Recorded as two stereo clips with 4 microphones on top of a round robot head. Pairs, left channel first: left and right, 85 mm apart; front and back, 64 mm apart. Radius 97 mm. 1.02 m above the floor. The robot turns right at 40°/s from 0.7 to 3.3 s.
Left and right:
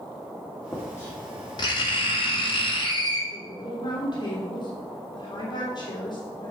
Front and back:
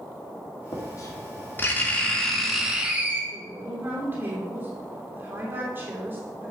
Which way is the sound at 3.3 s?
130° left.